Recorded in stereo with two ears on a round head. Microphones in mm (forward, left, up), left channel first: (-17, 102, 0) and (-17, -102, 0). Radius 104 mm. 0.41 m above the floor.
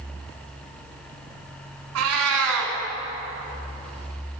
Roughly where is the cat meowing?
Right.